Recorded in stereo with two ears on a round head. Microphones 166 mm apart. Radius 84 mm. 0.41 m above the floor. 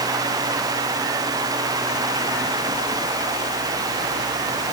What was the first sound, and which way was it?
Only background noise.